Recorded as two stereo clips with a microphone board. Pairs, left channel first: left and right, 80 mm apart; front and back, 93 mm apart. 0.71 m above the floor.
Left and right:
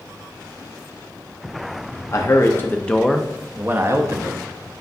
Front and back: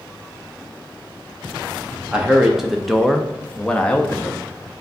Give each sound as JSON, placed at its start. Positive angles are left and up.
{"t": 2.1, "sound": "a man speaking", "azimuth_deg": 105, "distance_m": 0.8}